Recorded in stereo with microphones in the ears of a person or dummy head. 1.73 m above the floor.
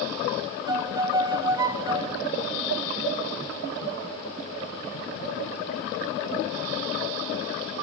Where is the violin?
20° right (ahead or behind), 0.6 m.